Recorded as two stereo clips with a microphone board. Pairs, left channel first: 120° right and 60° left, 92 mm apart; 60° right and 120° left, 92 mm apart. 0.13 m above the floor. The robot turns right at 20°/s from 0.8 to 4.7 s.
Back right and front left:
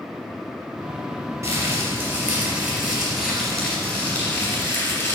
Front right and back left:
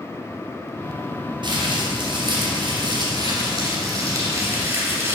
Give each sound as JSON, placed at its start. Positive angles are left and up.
{"t": 1.4, "sound": "crumpling", "azimuth_deg": 105, "distance_m": 2.5}